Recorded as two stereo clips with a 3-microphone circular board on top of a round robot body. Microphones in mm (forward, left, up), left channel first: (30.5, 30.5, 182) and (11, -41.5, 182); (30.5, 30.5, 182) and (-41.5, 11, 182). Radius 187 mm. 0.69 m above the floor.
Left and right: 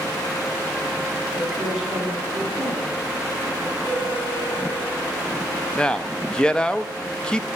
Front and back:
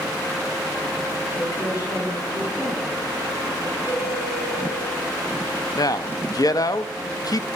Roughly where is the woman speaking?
Ahead.